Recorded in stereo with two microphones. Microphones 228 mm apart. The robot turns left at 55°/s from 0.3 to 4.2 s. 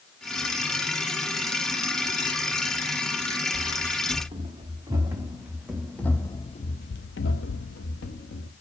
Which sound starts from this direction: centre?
Running footsteps, at 3.5 s.